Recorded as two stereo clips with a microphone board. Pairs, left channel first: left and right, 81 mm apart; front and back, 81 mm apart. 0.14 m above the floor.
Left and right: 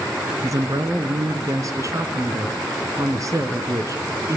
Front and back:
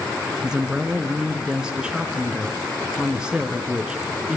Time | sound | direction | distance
0.4 | a woman speaking | 105° right | 1.6 m